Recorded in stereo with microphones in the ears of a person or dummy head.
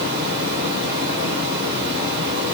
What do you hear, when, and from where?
0.0 s running water: 55° right (ahead or behind), 4 m